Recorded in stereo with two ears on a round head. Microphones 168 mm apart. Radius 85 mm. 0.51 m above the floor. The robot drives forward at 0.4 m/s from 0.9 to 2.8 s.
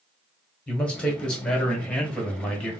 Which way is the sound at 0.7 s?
5° left (ahead or behind).